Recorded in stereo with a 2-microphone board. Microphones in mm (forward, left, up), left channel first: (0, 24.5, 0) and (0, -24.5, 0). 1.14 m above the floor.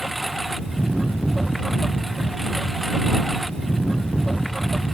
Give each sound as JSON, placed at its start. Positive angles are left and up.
{"t": 0.0, "sound": "a lawn mower", "side_deg": -5}